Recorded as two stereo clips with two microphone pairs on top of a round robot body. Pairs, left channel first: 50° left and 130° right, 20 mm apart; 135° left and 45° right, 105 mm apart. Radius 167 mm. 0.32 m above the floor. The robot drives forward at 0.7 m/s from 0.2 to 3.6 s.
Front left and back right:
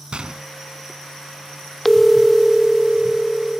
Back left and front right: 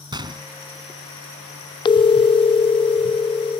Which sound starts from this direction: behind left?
A phone ringing, at 1.9 s.